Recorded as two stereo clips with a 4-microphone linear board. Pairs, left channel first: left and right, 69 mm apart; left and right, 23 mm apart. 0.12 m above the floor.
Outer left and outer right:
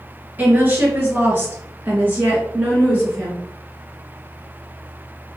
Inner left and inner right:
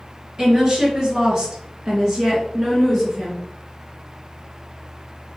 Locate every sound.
0.4 s a woman speaking: 25° right (ahead or behind), 2 m; by 3.5 s 15° right (ahead or behind), 2 m